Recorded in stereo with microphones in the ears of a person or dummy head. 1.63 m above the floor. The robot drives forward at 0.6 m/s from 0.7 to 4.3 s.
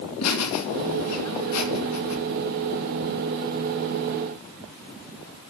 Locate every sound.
0.2 s laughter: 75° left (ahead or behind), 3 m; by 2.2 s 85° left, 3 m